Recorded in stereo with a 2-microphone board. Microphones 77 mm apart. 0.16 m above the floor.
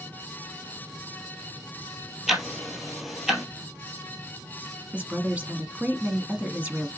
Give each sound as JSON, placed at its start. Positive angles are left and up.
{"t": 2.3, "sound": "ticking", "side_deg": -5, "distance_m": 1.5}
{"t": 4.9, "sound": "a woman speaking", "side_deg": -20, "distance_m": 1.2}